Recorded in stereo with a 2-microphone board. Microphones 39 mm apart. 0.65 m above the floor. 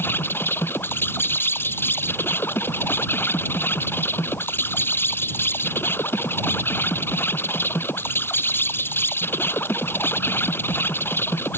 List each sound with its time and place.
0.0 s an insect: 90° left